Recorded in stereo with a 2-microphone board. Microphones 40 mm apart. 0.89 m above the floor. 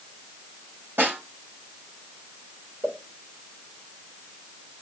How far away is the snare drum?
About 4 m.